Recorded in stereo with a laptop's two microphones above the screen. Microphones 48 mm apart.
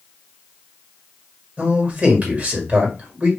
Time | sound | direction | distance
1.6 | a man speaking | 35° right (ahead or behind) | 1.9 m